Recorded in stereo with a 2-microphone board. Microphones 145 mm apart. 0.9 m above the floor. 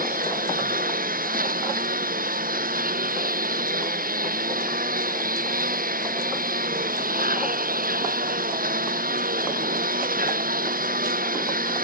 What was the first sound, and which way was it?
A lawn mower, 75° right (ahead or behind).